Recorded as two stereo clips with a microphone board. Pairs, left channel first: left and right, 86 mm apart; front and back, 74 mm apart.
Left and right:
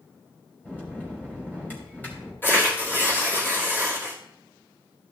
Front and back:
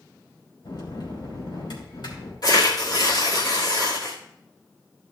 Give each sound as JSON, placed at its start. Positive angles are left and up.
{"t": 0.6, "sound": "a bell", "azimuth_deg": 20, "distance_m": 3.0}
{"t": 2.4, "sound": "tearing paper", "azimuth_deg": 25, "distance_m": 2.5}